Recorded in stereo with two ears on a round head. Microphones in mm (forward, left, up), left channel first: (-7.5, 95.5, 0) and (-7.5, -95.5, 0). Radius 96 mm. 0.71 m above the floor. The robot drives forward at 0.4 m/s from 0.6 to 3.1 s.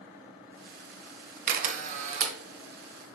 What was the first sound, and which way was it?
A camera shutter, 45° right (ahead or behind).